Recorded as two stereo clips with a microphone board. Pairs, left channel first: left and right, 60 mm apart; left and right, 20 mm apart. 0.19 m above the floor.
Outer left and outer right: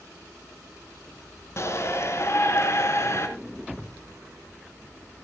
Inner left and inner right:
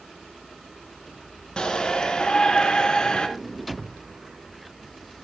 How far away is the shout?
About 2.5 m.